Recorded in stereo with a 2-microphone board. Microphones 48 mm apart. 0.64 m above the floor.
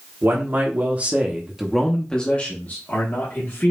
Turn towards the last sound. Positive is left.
turn(degrees=60)  # may be behind; listen again after turning